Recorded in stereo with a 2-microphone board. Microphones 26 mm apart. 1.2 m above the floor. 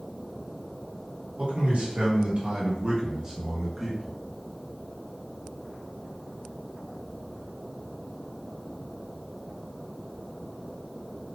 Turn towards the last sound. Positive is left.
turn(degrees=10)  # may be behind; listen again after turning